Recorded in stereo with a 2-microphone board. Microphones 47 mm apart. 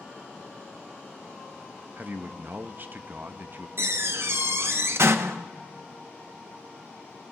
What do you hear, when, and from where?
2.0 s a man speaking: 45° right (ahead or behind), 0.7 m
3.8 s a door slam: 60° right (ahead or behind), 0.7 m